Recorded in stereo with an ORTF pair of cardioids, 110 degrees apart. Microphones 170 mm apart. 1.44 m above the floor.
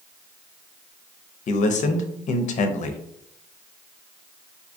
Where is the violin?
I don't hear a violin.